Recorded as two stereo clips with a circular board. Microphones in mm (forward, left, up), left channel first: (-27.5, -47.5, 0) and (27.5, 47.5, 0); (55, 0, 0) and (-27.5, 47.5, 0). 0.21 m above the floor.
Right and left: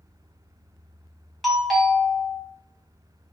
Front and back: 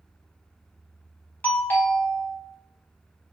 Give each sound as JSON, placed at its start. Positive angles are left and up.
{"t": 1.4, "sound": "a doorbell", "azimuth_deg": -30, "distance_m": 1.4}